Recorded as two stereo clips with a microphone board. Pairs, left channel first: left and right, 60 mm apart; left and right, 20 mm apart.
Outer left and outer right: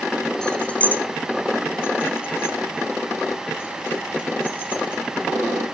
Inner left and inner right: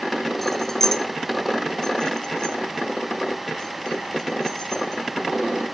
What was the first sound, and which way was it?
Keys jangling, 15° left (ahead or behind).